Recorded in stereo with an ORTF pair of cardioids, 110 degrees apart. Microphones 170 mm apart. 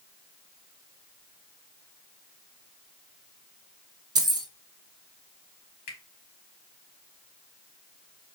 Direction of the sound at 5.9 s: 70° left.